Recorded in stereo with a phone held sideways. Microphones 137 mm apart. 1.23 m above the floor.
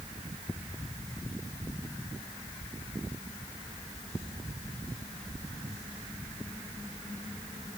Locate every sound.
Only background noise.